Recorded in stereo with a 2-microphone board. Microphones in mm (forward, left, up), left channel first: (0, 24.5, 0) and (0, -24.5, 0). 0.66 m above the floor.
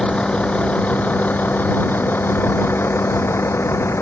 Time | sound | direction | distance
0.0 | a vehicle | 20° left (ahead or behind) | ?